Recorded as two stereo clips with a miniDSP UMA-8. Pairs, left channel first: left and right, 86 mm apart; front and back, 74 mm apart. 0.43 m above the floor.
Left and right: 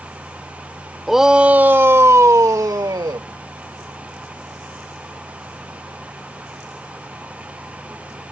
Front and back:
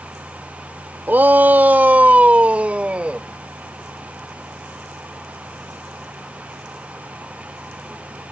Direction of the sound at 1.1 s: Straight behind.